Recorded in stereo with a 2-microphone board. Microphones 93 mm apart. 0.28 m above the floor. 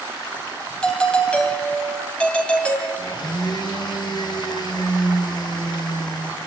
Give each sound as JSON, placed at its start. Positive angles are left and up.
{"t": 0.8, "sound": "a doorbell", "side_deg": 10, "distance_m": 2.5}
{"t": 3.0, "sound": "a blender", "side_deg": 50, "distance_m": 4.0}